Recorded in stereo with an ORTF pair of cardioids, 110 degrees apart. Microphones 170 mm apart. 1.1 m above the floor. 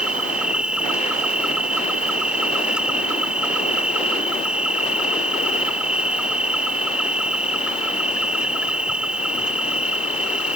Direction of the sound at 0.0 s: 5° right.